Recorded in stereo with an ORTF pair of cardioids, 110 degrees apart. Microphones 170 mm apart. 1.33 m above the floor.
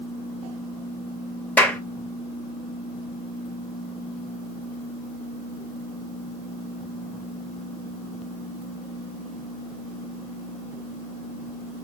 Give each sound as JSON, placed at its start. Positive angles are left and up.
{"t": 1.6, "sound": "a clap", "azimuth_deg": 10, "distance_m": 1.1}